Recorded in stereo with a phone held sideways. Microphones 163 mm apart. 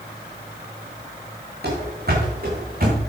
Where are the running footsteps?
70° right (ahead or behind), 5.5 m; by 3.0 s 55° right (ahead or behind), 5.5 m.